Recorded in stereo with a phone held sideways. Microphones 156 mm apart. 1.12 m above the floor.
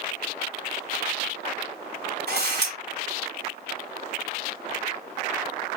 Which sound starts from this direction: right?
A camera shutter, at 2.3 s.